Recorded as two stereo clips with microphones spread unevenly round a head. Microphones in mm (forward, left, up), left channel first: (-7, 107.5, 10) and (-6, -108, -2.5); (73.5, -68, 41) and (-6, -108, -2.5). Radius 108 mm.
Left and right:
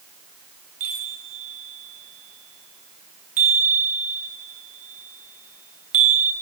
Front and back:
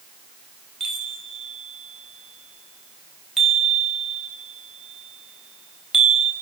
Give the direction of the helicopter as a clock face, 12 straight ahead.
No helicopter in this recording.